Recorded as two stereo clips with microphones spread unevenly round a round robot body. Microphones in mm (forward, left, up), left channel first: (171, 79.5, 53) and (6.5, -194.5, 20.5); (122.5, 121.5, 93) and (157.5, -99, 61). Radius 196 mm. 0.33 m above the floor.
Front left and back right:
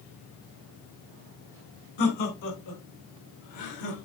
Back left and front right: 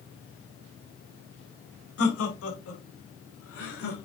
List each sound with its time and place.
2.0 s laughter: 95° left, 4 m; by 4.1 s 80° left, 5.5 m